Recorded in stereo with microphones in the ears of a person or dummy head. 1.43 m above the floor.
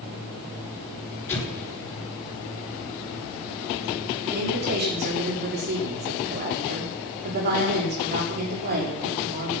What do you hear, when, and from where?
1.3 s an explosion: 10° left (ahead or behind), 5.5 m
4.2 s a woman speaking: 45° right (ahead or behind), 4.5 m